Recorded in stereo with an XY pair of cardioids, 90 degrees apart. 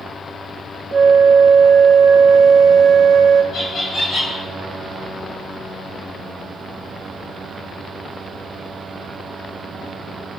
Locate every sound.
0.9 s a flute: 50° right, 0.8 m
3.5 s laughter: 55° left, 3 m